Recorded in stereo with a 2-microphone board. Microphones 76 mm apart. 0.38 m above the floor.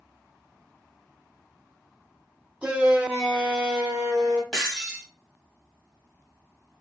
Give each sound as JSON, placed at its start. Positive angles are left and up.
{"t": 2.6, "sound": "a shout", "side_deg": -15, "distance_m": 0.9}
{"t": 4.5, "sound": "breaking glass", "side_deg": 10, "distance_m": 1.2}